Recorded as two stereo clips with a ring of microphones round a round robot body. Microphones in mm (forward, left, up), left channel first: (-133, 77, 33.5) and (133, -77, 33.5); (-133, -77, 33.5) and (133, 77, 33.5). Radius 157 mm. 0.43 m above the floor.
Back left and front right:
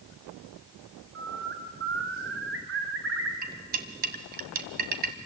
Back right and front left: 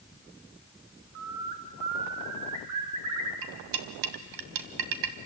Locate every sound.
1.1 s a bird: 20° left, 2.5 m
3.4 s cutlery clinking: 30° left, 1.7 m